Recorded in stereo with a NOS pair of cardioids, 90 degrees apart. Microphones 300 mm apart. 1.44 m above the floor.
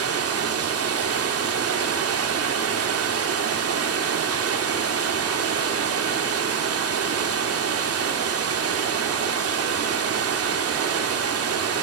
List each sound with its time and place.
0.0 s running water: 50° right, 2.5 m